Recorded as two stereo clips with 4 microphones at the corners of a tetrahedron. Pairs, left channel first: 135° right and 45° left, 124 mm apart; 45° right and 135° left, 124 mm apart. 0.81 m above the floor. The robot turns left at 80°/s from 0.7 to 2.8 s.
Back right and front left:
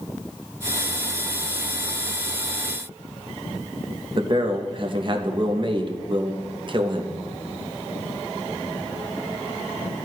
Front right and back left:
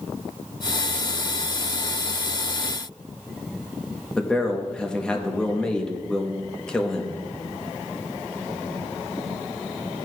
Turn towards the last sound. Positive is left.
turn(degrees=35)